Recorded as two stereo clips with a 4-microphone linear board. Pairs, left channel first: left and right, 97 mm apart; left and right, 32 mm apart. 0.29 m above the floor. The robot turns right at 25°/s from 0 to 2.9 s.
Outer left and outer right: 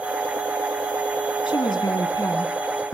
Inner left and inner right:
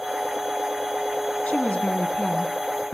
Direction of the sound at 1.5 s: 120° left.